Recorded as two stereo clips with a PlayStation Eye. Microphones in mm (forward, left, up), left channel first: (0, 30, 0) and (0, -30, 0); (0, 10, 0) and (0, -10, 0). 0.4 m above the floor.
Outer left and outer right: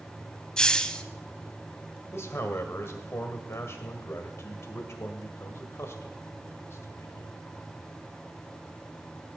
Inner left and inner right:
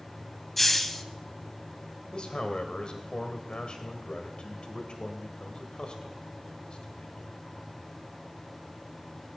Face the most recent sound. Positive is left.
turn(degrees=50)  # may be behind; listen again after turning